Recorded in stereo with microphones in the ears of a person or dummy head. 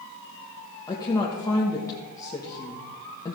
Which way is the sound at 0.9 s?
15° left (ahead or behind).